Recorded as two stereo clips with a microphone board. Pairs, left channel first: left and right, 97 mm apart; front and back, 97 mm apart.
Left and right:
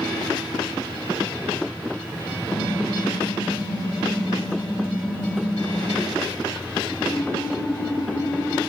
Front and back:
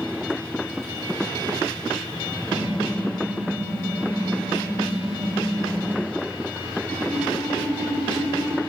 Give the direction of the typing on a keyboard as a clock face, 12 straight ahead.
8 o'clock.